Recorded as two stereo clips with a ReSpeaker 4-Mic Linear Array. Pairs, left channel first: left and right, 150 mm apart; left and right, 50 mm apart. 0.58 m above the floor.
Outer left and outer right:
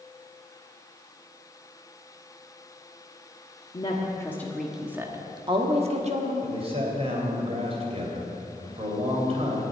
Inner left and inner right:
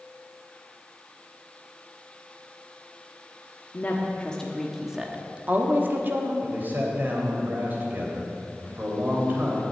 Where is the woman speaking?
35° left (ahead or behind), 1.2 m; by 6.3 s 50° right (ahead or behind), 1.6 m.